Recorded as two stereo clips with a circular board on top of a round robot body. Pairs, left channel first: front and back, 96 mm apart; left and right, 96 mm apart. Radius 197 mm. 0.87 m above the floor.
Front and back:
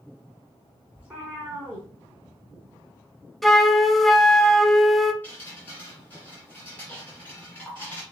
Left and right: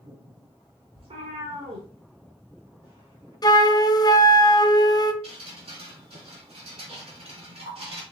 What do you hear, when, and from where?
0.9 s a cat meowing: 105° right, 0.7 m
3.4 s a flute: 90° left, 0.8 m
5.2 s dripping: 75° right, 0.9 m